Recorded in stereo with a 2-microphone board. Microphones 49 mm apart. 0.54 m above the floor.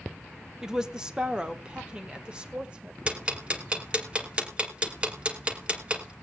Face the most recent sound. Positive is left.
turn(degrees=-25)  # may be behind; listen again after turning